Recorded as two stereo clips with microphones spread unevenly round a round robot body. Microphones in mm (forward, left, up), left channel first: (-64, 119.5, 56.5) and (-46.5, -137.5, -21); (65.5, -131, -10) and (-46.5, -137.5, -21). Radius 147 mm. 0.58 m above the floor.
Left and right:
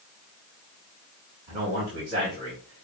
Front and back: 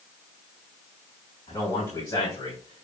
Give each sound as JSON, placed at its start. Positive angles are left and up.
{"t": 1.5, "sound": "a man speaking", "azimuth_deg": -50, "distance_m": 4.5}